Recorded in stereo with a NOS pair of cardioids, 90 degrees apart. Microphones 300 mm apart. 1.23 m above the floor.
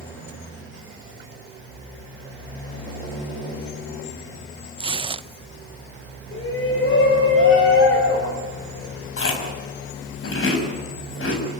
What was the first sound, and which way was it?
Tearing paper, 20° right.